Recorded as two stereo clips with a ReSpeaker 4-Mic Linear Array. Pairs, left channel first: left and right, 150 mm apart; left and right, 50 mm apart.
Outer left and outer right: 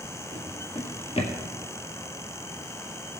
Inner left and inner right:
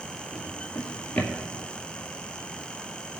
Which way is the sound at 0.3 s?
40° left (ahead or behind).